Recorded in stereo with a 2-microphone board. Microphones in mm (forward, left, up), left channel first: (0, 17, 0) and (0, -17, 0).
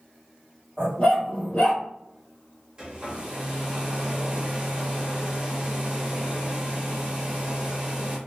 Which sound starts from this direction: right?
A hair dryer, at 2.8 s.